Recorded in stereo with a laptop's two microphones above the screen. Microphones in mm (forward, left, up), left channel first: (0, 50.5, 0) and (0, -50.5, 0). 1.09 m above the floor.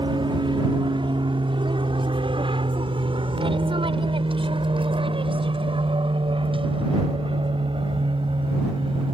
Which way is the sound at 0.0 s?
55° right (ahead or behind).